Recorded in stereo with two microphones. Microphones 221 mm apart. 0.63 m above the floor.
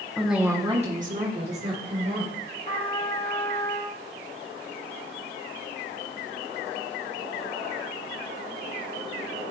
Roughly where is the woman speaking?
Centre.